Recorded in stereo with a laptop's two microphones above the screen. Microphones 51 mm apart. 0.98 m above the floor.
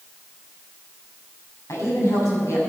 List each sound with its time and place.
1.7 s a woman speaking: 85° left, 6 m